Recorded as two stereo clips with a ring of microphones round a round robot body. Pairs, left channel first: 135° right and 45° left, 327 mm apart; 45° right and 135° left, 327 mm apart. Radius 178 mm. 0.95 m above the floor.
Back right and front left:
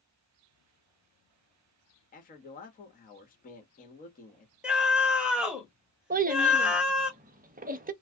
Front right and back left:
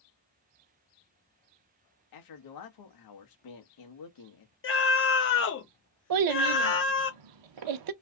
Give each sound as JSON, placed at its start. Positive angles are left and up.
{"t": 2.1, "sound": "a man speaking", "azimuth_deg": -70, "distance_m": 1.2}
{"t": 4.6, "sound": "a scream", "azimuth_deg": -40, "distance_m": 1.0}
{"t": 6.1, "sound": "a child speaking", "azimuth_deg": 110, "distance_m": 0.7}